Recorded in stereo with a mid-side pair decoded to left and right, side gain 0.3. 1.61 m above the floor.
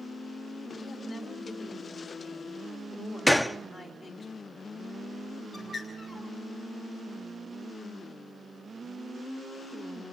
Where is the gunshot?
10° left, 0.7 m.